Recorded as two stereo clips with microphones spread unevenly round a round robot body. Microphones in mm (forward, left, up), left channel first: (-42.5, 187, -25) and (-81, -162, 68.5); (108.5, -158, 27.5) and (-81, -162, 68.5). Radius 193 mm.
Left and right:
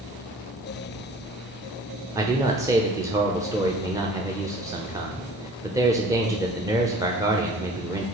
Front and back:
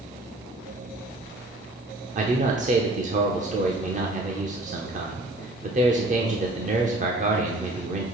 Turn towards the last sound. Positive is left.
turn(degrees=160)